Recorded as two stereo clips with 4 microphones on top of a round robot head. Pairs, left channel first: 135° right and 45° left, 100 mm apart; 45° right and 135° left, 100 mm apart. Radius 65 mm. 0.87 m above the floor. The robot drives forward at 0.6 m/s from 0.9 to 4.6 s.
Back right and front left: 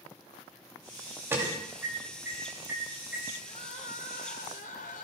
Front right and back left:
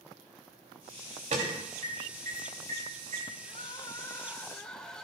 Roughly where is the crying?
Right.